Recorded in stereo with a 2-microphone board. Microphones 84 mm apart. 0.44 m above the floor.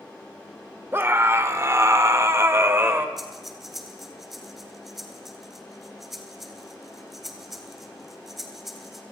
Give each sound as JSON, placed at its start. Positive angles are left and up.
{"t": 0.9, "sound": "a scream", "side_deg": -25, "distance_m": 1.7}
{"t": 3.2, "sound": "breathing", "side_deg": 0, "distance_m": 3.0}